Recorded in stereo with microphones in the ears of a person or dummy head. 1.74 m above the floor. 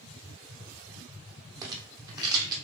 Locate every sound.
1.6 s a rattle: 20° right (ahead or behind), 0.7 m